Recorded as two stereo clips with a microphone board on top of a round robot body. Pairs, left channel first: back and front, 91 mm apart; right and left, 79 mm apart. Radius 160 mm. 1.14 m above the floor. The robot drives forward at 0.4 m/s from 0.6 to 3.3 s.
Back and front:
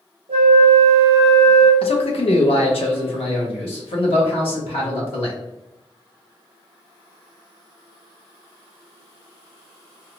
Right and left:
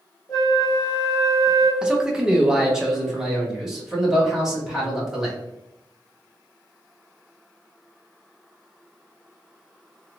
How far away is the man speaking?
About 0.6 m.